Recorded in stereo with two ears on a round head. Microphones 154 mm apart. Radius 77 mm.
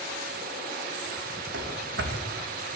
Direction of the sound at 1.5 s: 70° right (ahead or behind).